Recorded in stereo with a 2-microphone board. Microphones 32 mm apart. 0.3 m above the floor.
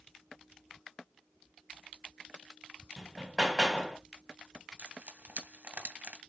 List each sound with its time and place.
3.0 s hammering: 5° right (ahead or behind), 1.5 m
4.8 s frying: 55° right (ahead or behind), 2 m